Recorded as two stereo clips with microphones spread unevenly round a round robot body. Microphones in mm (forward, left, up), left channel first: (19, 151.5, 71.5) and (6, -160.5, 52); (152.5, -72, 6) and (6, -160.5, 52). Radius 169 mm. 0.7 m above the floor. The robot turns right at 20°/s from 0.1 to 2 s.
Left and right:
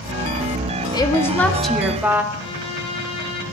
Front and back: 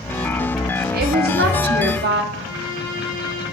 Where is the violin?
160° left, 3 m.